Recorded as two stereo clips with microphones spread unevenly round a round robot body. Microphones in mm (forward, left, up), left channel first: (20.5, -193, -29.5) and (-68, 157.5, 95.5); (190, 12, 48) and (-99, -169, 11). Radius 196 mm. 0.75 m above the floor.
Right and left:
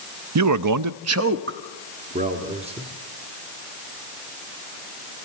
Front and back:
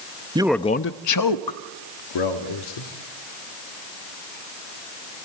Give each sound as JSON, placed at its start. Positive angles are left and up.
{"t": 0.3, "sound": "a man speaking", "azimuth_deg": 155, "distance_m": 0.6}